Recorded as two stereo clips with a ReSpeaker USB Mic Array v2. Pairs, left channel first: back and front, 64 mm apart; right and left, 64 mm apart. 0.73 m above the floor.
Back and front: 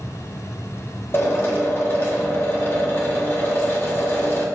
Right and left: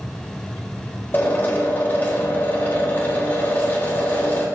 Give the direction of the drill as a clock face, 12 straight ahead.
5 o'clock.